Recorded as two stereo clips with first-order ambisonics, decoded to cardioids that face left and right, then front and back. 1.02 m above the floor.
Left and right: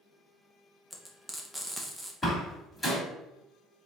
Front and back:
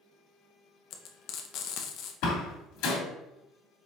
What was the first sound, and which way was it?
Frying, straight ahead.